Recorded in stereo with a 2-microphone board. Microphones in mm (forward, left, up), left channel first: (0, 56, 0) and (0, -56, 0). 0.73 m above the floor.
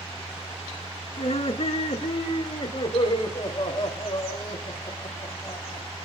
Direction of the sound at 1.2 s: 65° left (ahead or behind).